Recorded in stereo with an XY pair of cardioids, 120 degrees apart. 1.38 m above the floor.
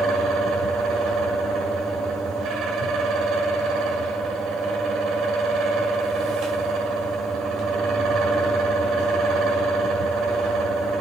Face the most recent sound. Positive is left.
turn(degrees=-70)